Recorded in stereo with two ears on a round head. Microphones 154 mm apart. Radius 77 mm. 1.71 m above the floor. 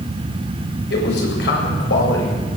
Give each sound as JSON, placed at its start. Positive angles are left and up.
{"t": 0.9, "sound": "a man speaking", "side_deg": 65, "distance_m": 8.0}